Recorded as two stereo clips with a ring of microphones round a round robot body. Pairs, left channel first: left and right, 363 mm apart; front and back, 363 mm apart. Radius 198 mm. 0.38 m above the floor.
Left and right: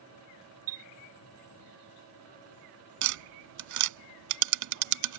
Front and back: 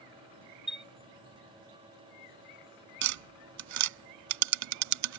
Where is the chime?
90° right.